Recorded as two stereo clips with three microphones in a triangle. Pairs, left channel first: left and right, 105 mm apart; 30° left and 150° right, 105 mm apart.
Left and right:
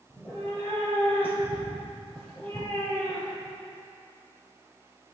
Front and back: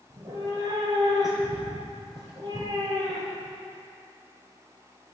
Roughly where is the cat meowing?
Behind.